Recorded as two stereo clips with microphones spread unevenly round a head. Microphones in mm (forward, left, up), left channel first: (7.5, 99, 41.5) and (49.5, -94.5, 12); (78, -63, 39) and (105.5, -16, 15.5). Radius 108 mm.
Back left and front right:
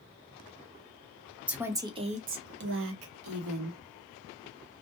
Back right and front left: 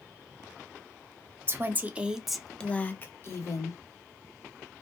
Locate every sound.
1.5 s a woman speaking: 5° left, 1.0 m; by 3.8 s 90° right, 1.2 m